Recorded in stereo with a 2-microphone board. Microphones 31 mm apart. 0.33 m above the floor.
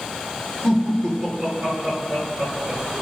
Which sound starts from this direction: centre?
Laughter, at 0.6 s.